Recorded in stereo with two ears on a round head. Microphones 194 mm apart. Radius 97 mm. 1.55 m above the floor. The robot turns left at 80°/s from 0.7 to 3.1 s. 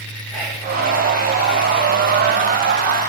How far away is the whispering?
About 1.2 m.